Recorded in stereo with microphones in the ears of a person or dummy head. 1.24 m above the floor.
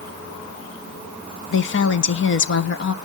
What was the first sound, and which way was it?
A woman speaking, 60° left (ahead or behind).